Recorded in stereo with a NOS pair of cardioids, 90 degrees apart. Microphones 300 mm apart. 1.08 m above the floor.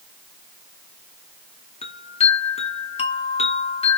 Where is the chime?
20° left, 0.7 m.